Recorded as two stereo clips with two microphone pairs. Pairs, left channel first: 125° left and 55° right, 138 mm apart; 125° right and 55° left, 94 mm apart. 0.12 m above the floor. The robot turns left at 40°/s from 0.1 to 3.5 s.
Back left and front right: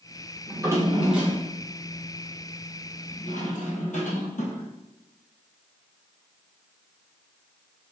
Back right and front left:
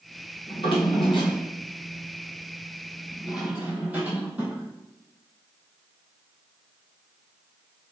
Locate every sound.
0.5 s a drawer: 110° right, 1.6 m; by 4.7 s 125° left, 1.6 m